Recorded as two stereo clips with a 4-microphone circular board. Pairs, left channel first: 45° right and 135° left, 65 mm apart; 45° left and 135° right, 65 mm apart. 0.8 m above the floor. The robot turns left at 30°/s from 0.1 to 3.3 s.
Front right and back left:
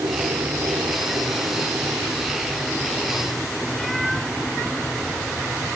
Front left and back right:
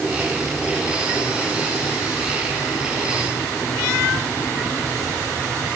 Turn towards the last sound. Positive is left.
turn(degrees=45)